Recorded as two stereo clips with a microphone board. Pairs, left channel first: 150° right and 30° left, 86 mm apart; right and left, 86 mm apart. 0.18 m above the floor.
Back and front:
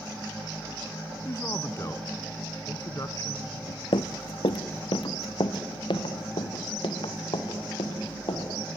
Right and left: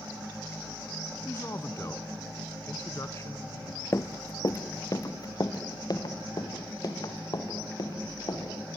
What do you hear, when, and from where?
1.2 s a man speaking: 125° right, 1.3 m
3.9 s running footsteps: 145° right, 0.7 m; by 8.8 s 130° right, 4 m